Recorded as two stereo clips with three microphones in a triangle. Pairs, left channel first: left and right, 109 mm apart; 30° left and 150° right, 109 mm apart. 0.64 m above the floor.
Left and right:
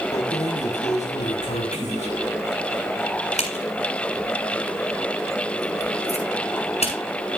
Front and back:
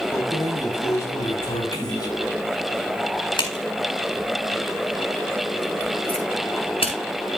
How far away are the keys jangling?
About 3.5 m.